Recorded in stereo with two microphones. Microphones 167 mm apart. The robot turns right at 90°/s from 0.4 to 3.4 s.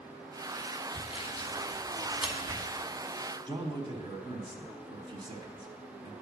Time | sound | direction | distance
0.9 | sawing | 30° left (ahead or behind) | 1.2 m
3.5 | a man speaking | 25° right (ahead or behind) | 1.1 m